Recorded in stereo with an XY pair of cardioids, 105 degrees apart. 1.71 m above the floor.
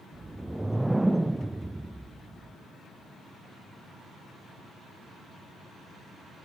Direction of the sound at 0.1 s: 5° right.